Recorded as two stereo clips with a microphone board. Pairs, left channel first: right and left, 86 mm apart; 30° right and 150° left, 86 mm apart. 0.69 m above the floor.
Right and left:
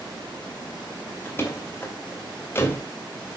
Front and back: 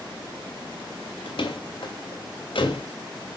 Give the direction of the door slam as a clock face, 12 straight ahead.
1 o'clock.